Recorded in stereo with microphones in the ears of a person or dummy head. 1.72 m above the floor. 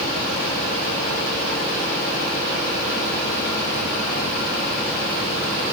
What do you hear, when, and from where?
Only background noise.